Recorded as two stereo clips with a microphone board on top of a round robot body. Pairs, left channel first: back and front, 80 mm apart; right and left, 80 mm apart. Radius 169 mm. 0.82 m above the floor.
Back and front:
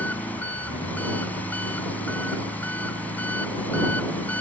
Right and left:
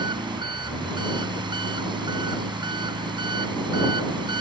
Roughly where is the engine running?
Left.